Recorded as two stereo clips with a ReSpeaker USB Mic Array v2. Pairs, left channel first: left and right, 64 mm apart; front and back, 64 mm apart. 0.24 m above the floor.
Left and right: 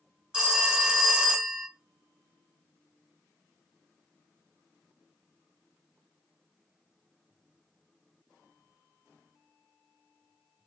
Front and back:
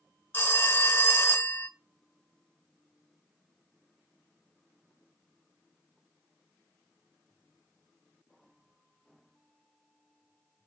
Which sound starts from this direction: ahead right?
A phone ringing, at 0.3 s.